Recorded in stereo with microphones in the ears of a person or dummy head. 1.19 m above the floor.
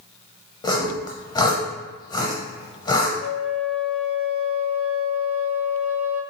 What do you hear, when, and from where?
0.6 s sawing: 20° left (ahead or behind), 0.6 m
3.2 s a flute: 35° left (ahead or behind), 0.5 m